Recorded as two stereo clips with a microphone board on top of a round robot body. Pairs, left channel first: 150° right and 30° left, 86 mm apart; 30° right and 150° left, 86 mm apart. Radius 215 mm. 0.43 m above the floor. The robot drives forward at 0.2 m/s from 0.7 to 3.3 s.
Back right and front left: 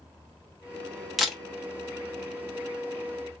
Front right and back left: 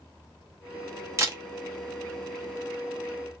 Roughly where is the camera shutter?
Behind left.